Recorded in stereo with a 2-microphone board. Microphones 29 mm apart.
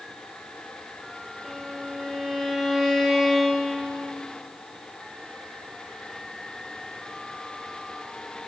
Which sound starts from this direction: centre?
A violin, at 1.4 s.